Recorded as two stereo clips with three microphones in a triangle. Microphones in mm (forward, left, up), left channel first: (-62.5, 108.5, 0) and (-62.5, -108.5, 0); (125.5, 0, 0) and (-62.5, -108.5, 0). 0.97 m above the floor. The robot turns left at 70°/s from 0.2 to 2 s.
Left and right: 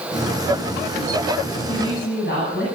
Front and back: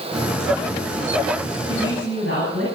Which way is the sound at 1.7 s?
75° left.